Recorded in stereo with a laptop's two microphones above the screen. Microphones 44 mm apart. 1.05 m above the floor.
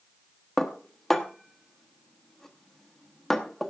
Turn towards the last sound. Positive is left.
turn(degrees=5)  # may be behind; listen again after turning